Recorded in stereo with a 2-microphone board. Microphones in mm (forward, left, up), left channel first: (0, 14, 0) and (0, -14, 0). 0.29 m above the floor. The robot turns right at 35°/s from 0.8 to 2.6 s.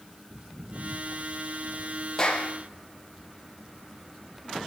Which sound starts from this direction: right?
Footsteps, at 0.3 s.